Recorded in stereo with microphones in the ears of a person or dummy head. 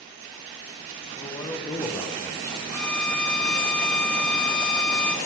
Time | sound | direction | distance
1.2 | a man speaking | 20° left (ahead or behind) | 0.7 m
2.7 | a violin | 10° left (ahead or behind) | 0.7 m